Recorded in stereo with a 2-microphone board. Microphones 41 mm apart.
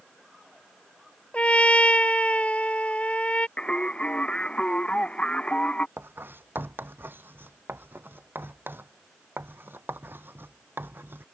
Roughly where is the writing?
Right.